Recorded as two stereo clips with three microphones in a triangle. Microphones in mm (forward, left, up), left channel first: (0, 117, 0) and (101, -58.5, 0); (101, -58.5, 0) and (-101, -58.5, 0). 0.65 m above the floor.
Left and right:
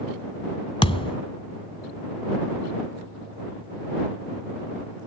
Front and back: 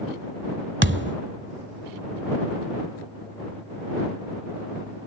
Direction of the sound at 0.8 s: Straight behind.